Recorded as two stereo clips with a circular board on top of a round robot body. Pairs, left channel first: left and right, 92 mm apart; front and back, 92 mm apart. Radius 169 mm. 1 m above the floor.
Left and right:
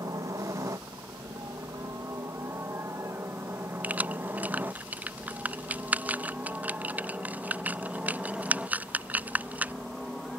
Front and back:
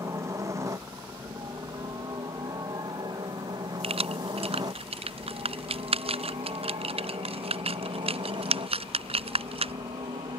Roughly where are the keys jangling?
Behind.